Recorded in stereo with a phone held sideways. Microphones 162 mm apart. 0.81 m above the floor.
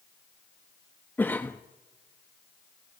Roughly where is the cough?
Centre.